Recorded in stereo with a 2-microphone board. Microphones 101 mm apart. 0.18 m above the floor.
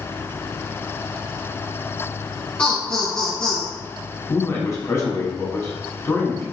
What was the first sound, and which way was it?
Laughter, 15° left (ahead or behind).